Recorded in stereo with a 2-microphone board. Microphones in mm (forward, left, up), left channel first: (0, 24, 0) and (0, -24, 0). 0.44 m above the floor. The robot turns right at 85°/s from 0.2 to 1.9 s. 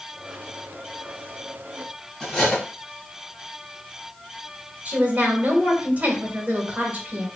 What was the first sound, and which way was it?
Cutlery clinking, 10° left (ahead or behind).